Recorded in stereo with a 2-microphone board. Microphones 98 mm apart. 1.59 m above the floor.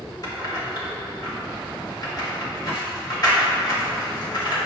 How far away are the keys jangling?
About 2 m.